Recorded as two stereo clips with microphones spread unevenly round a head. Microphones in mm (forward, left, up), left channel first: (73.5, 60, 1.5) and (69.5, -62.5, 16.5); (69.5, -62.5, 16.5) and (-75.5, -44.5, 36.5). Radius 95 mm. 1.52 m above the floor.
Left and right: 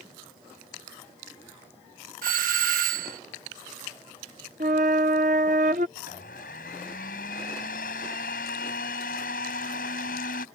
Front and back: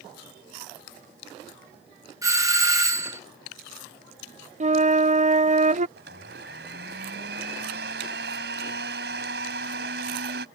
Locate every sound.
2.2 s a doorbell: 115° right
4.6 s a flute: 145° right
6.0 s a blender: 135° left